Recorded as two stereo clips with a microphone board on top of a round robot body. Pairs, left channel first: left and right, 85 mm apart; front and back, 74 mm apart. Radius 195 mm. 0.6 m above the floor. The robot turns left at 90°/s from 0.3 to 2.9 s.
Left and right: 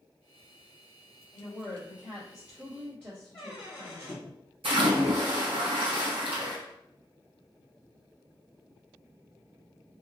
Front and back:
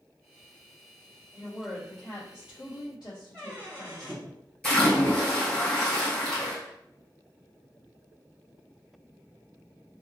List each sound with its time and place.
1.3 s a woman speaking: 115° left, 1.5 m; by 4.2 s 25° right, 1.5 m
3.3 s a squeak: 75° left, 0.6 m
4.6 s a splash: 75° right, 1.9 m